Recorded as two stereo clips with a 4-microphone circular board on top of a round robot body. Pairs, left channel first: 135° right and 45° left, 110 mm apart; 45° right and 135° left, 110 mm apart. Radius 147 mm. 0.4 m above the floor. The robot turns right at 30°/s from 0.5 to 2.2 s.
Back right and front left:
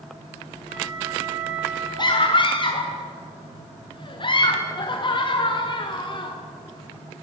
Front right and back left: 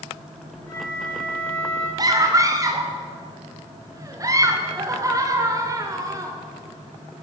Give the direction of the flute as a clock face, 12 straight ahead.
12 o'clock.